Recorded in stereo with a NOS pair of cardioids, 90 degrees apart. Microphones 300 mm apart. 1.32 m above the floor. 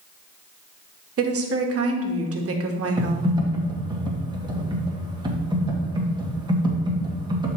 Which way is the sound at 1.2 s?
50° right.